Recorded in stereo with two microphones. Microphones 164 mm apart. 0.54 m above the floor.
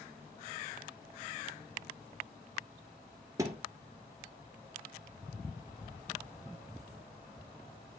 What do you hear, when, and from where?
3.4 s a thud: 20° right (ahead or behind), 1.3 m